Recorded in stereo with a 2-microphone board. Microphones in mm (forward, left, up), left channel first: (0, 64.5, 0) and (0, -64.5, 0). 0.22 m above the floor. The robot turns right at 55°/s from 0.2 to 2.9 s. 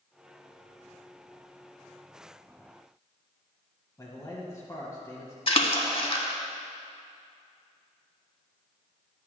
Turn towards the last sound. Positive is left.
turn(degrees=45)  # may be behind; listen again after turning